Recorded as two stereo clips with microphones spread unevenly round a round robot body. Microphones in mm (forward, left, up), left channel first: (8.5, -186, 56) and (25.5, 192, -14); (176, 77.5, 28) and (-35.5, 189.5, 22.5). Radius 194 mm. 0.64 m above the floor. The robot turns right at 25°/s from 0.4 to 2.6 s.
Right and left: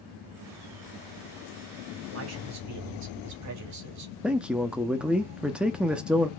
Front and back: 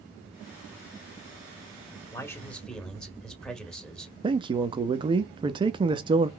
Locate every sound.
2.1 s a man speaking: 45° left, 2 m; by 4.1 s 60° left, 2 m
4.2 s a man speaking: 140° left, 0.5 m